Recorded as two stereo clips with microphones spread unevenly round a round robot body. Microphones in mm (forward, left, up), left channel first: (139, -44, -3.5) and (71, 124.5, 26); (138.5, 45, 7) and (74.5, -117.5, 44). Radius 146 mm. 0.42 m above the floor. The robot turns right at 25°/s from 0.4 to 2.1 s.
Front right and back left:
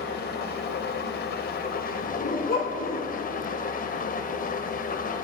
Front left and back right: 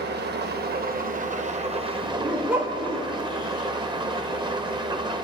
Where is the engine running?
85° right, 1.2 m; by 5.2 s 40° right, 1.2 m.